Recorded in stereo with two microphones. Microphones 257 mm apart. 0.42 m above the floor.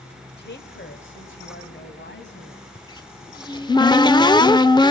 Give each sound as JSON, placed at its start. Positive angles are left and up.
{"t": 0.4, "sound": "a woman speaking", "side_deg": 40, "distance_m": 1.2}
{"t": 2.8, "sound": "a cupboard door", "side_deg": 15, "distance_m": 0.6}